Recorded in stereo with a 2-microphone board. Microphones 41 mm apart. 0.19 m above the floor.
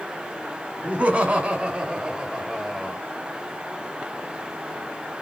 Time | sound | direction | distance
0.8 | laughter | 35° right (ahead or behind) | 1.2 m